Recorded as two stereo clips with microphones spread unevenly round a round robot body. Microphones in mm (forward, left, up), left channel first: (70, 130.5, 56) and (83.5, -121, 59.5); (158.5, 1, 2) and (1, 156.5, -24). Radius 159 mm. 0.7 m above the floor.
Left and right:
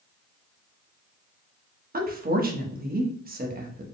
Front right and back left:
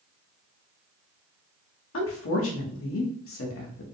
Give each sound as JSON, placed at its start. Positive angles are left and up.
{"t": 1.9, "sound": "a woman speaking", "azimuth_deg": -35, "distance_m": 1.2}